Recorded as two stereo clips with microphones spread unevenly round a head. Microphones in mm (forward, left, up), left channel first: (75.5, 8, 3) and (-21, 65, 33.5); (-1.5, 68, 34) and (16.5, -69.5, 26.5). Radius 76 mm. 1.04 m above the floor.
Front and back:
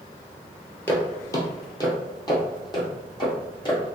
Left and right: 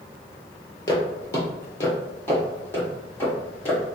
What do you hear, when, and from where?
0.9 s footsteps: 50° left, 1.2 m; by 4.0 s 20° left, 3.5 m